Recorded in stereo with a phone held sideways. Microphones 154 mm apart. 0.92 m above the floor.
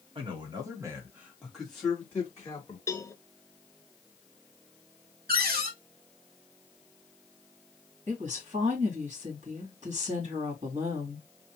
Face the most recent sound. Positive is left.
turn(degrees=-50)  # may be behind; listen again after turning